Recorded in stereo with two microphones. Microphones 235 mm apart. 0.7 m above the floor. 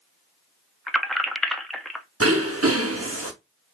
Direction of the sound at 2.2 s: 70° right (ahead or behind).